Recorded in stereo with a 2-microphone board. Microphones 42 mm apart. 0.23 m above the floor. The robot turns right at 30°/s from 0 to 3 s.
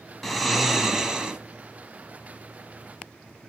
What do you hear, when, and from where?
0.2 s snoring: 175° left, 0.9 m; by 1.4 s 150° right, 0.9 m